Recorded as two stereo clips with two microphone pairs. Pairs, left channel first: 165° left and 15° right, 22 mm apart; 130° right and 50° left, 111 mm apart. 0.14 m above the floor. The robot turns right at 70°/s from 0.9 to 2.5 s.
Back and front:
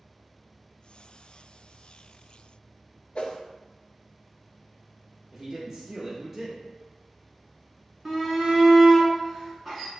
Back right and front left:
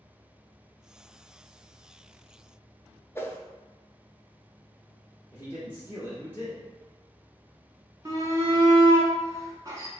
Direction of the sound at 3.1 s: 165° left.